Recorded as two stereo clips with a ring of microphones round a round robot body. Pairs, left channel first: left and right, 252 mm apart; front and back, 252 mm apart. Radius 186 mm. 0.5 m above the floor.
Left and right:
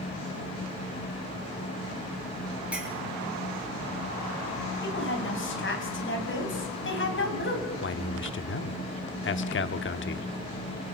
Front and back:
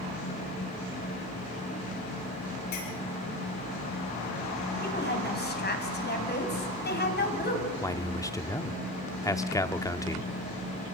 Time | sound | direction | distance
2.7 | a clink | 5° right | 5.5 m
4.8 | a woman speaking | 50° left | 4 m
7.8 | a man speaking | 75° left | 1.0 m